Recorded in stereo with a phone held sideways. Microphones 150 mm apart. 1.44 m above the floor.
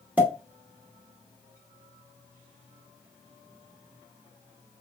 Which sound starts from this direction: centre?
A pop, at 0.2 s.